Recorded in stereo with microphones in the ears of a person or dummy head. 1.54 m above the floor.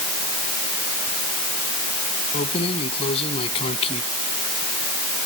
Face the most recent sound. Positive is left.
turn(degrees=35)  # may be behind; listen again after turning